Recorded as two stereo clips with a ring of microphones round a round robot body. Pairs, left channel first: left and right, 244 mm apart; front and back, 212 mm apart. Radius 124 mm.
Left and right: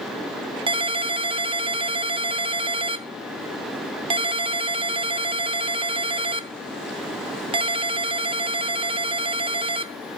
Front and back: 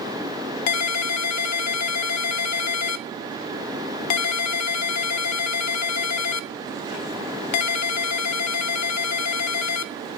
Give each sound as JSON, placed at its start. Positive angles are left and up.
{"t": 0.7, "sound": "a ringtone", "azimuth_deg": -20, "distance_m": 0.7}